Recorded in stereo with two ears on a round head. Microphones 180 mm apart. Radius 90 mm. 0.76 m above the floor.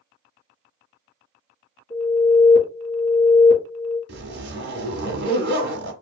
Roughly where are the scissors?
No scissors in this recording.